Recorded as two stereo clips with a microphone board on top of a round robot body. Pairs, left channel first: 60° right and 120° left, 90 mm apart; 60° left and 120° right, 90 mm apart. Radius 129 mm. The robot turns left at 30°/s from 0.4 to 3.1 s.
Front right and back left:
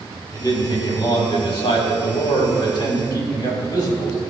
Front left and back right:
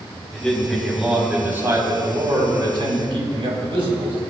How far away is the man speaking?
About 4 m.